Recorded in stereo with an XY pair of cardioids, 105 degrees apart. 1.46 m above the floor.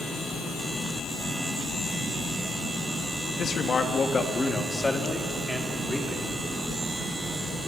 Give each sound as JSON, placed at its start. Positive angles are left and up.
{"t": 3.4, "sound": "a man speaking", "azimuth_deg": 45, "distance_m": 2.5}